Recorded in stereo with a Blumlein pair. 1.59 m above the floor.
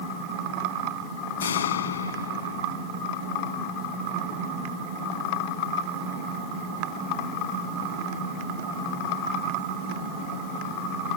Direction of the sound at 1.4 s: 65° left.